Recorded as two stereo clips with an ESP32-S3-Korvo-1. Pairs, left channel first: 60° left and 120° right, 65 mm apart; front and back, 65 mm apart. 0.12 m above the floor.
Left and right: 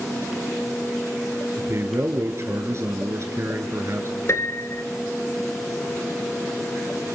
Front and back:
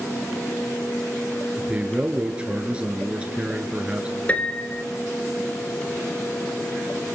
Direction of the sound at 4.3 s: 55° left.